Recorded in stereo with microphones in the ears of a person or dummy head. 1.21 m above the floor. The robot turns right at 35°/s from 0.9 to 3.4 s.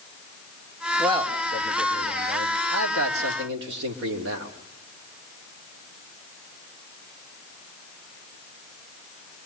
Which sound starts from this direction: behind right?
A man speaking, at 1.0 s.